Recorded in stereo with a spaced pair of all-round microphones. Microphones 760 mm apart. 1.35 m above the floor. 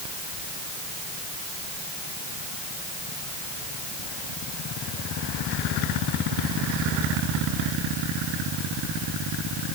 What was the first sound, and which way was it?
Only background noise.